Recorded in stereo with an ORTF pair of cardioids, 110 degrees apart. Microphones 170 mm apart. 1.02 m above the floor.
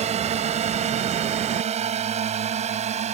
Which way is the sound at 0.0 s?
45° right.